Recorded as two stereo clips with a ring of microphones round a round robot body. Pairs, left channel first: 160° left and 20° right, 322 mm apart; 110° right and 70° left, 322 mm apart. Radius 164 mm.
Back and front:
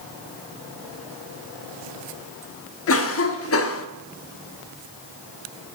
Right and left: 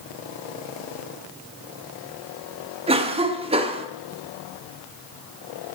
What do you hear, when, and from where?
2.9 s a cough: 135° left, 0.9 m